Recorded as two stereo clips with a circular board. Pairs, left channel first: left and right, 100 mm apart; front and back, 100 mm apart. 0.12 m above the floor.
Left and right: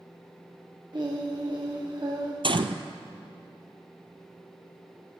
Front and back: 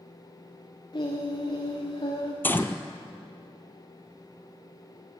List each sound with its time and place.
0.9 s singing: 45° right, 5 m
2.4 s a gunshot: 70° right, 1.0 m